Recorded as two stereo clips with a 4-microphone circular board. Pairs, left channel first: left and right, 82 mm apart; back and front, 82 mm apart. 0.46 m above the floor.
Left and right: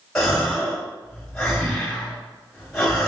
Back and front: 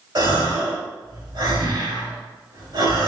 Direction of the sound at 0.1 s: 10° left.